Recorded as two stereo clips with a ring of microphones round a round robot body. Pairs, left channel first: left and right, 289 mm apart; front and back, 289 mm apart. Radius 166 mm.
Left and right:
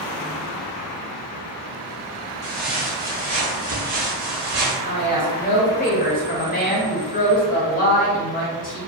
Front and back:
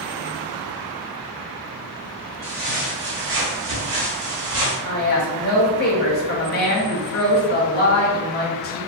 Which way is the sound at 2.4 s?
155° left.